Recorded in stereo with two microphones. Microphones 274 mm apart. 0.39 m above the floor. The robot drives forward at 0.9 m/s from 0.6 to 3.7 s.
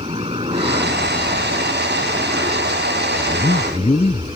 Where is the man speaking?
25° left (ahead or behind); by 4.4 s 20° left (ahead or behind).